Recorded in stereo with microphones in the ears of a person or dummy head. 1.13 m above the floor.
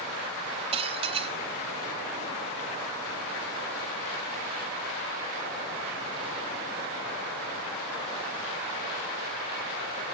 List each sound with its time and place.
0.7 s dishes clattering: 30° right (ahead or behind), 1.4 m